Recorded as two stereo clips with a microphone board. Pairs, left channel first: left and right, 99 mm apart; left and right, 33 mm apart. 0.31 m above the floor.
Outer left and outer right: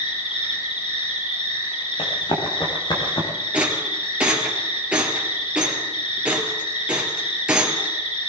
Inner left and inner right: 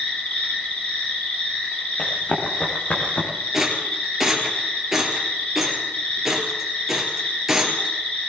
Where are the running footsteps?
60° left (ahead or behind), 4 m; by 3.3 s 50° left (ahead or behind), 4 m.